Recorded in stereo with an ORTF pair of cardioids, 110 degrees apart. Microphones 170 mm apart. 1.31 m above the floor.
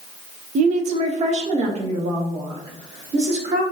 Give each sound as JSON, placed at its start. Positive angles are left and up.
{"t": 0.6, "sound": "a woman speaking", "azimuth_deg": -45, "distance_m": 0.5}